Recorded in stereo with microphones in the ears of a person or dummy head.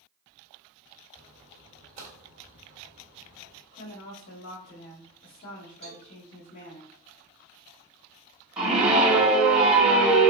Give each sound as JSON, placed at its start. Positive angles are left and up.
{"t": 1.1, "sound": "a splash", "side_deg": -35, "distance_m": 1.7}
{"t": 3.7, "sound": "a woman speaking", "side_deg": 55, "distance_m": 0.8}
{"t": 5.8, "sound": "a cowbell", "side_deg": -45, "distance_m": 0.6}
{"t": 8.6, "sound": "a scream", "side_deg": -5, "distance_m": 1.0}